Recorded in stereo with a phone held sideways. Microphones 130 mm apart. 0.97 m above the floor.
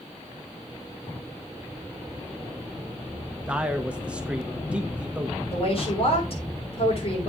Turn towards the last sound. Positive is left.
turn(degrees=50)  # may be behind; listen again after turning